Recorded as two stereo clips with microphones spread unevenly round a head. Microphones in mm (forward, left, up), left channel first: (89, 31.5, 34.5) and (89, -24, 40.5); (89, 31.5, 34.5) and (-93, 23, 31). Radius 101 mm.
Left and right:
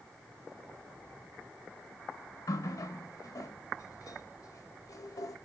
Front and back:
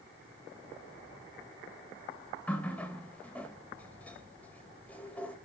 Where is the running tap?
85° left, 1.6 m.